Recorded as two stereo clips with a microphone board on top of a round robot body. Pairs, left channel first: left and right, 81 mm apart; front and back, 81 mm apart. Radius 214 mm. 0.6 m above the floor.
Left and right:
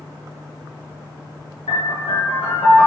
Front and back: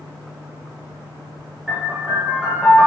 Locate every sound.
1.7 s a piano: 95° left, 0.6 m